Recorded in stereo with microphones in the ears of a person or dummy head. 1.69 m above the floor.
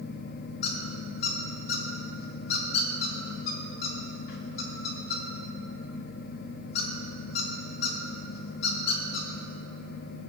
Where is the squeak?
60° left (ahead or behind), 1.1 m.